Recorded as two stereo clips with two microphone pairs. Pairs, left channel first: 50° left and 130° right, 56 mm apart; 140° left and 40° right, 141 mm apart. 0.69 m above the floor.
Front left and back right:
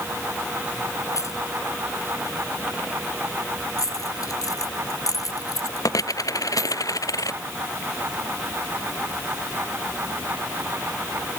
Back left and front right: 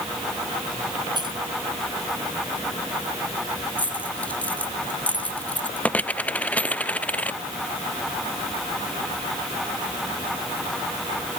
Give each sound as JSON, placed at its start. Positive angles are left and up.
{"t": 1.1, "sound": "keys jangling", "azimuth_deg": 20}
{"t": 3.8, "sound": "a dropped coin", "azimuth_deg": 60}